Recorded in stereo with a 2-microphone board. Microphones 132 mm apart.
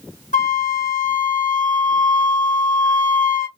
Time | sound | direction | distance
0.3 | a flute | 75° left (ahead or behind) | 0.7 m